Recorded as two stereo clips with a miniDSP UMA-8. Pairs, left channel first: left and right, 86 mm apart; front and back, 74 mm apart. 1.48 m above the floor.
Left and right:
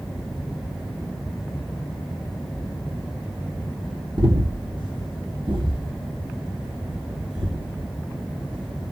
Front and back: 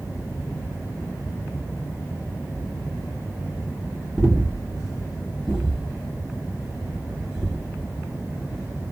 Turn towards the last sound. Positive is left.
turn(degrees=-95)